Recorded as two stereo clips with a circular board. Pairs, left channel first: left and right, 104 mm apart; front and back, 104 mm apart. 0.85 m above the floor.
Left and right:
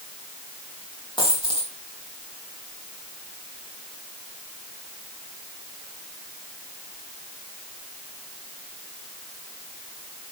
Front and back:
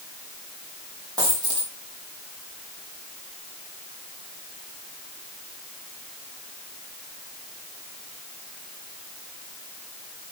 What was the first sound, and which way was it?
A dropped coin, 125° left.